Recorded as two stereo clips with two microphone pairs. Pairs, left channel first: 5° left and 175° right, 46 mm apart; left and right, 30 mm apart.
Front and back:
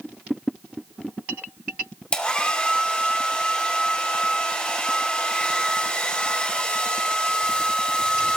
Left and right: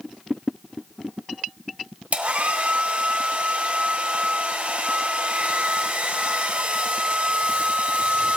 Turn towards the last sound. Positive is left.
turn(degrees=-60)